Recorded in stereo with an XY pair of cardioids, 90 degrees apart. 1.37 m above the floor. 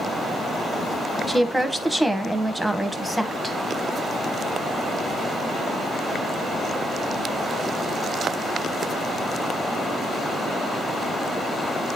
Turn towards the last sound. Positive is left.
turn(degrees=0)